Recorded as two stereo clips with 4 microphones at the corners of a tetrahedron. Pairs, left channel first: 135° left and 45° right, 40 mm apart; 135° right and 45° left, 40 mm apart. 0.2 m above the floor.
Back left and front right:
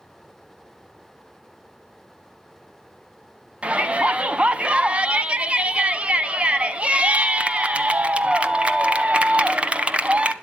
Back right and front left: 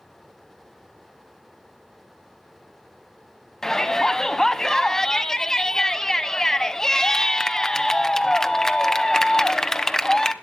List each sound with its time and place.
3.6 s a shout: 70° right, 1.2 m